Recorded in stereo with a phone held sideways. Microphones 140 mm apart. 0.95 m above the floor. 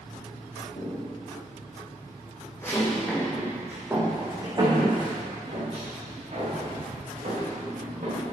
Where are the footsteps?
55° left (ahead or behind), 4.5 m; by 8.3 s 60° right (ahead or behind), 8.5 m.